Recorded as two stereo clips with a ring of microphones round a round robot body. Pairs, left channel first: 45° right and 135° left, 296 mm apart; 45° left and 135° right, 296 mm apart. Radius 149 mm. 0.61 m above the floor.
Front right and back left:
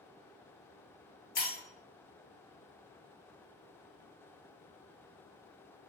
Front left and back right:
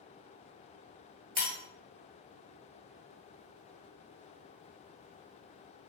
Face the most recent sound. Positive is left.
turn(degrees=-15)